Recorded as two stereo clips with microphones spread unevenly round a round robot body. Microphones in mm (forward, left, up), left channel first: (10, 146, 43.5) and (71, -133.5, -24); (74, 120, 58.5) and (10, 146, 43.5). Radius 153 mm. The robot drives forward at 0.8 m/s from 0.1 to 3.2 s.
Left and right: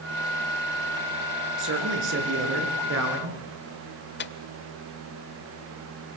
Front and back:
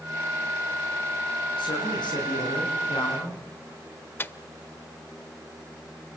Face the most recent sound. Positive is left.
turn(degrees=45)